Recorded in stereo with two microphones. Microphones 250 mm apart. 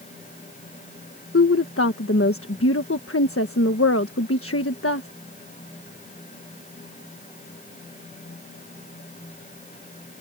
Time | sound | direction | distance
1.3 | a woman speaking | 60° left (ahead or behind) | ?